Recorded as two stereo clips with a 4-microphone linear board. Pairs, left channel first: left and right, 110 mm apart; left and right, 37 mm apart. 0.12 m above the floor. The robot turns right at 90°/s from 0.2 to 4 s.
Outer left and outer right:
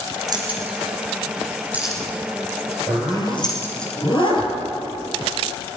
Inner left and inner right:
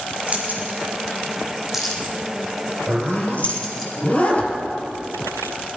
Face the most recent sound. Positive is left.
turn(degrees=45)  # may be behind; listen again after turning